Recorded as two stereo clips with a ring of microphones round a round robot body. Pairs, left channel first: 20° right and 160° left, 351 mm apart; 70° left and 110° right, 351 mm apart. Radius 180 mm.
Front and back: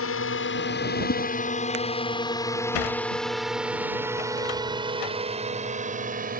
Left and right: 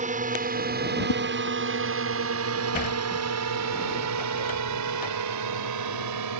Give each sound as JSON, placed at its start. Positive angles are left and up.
{"t": 0.0, "sound": "a drone", "azimuth_deg": -55}
{"t": 1.1, "sound": "a whoosh", "azimuth_deg": 40}
{"t": 2.7, "sound": "a sliding door", "azimuth_deg": 0}